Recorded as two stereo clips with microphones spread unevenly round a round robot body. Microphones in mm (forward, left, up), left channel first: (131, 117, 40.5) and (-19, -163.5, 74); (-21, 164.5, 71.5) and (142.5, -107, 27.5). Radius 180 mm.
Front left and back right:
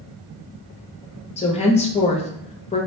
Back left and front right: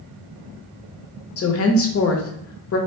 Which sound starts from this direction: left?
A woman speaking, at 1.4 s.